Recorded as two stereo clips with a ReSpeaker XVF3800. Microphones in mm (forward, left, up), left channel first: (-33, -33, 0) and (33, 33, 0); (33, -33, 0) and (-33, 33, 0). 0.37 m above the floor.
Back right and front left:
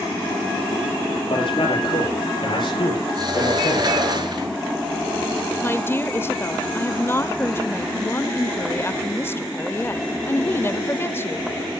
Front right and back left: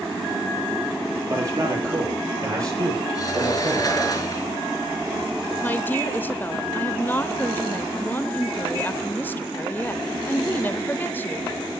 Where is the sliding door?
5° left, 5 m.